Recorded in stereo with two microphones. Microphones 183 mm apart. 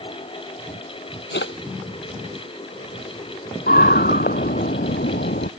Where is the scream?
55° left (ahead or behind).